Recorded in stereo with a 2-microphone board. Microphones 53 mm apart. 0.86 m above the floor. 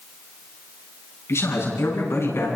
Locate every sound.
1.3 s a man speaking: 55° left (ahead or behind), 9.5 m; by 2.5 s 50° left (ahead or behind), 9 m